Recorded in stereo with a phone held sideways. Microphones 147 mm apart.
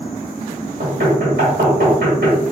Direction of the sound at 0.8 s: 80° right.